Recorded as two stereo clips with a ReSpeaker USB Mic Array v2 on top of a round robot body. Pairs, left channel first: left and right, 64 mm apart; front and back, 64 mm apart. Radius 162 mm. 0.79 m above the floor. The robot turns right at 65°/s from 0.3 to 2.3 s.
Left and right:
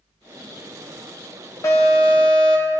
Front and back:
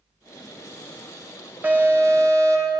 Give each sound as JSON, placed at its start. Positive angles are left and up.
{"t": 1.6, "sound": "an alarm", "azimuth_deg": 120, "distance_m": 3.0}